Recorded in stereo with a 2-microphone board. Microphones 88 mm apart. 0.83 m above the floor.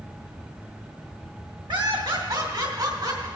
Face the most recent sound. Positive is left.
turn(degrees=-55)  # may be behind; listen again after turning